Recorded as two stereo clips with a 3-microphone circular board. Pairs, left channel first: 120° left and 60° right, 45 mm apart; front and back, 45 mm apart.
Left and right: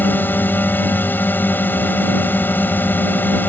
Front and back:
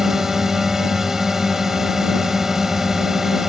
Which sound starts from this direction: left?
A drone, at 0.0 s.